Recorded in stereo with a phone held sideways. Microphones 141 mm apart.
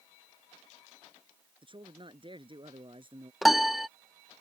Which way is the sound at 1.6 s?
35° right (ahead or behind).